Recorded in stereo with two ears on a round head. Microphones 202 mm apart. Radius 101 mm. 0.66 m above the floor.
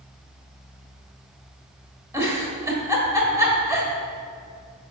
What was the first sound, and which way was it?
A giggle, 15° right (ahead or behind).